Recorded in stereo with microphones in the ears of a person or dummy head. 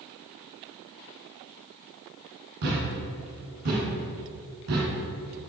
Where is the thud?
50° right (ahead or behind), 1.9 m.